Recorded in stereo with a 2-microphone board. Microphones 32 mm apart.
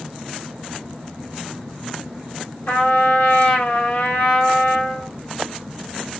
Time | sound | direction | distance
2.7 | a trumpet | 85° left | 1.2 m